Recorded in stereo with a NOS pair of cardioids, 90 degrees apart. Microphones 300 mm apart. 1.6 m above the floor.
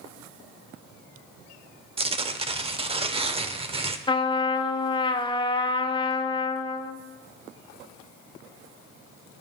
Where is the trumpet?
15° left, 0.8 m.